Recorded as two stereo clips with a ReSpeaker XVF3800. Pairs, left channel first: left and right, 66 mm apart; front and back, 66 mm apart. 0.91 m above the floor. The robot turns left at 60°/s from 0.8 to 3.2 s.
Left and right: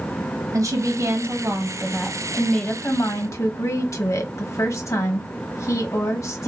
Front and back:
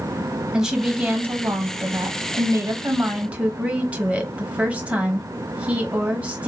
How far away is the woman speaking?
About 1.0 m.